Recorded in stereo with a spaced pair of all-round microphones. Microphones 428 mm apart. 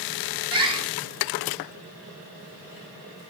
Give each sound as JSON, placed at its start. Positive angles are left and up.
{"t": 0.5, "sound": "a bird", "side_deg": -10, "distance_m": 1.0}